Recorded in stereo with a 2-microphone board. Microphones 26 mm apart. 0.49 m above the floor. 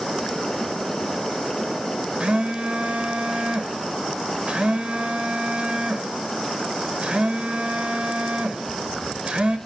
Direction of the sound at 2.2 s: 45° right (ahead or behind).